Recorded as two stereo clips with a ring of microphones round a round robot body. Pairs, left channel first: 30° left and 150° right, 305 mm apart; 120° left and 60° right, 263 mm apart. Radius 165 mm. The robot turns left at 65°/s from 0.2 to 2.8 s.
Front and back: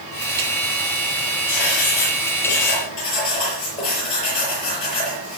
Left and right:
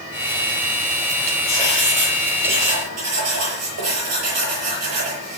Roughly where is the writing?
Ahead left.